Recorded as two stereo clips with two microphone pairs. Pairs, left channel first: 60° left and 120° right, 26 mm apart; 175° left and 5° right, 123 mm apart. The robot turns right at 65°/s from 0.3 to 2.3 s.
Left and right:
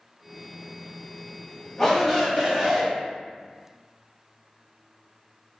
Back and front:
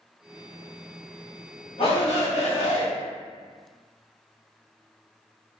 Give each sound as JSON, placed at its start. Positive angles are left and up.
{"t": 1.8, "sound": "a shout", "azimuth_deg": 135, "distance_m": 1.7}